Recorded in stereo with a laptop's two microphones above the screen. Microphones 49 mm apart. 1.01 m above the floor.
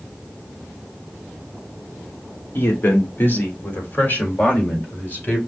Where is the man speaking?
50° left (ahead or behind), 1.8 m; by 5.4 s 30° left (ahead or behind), 3.5 m.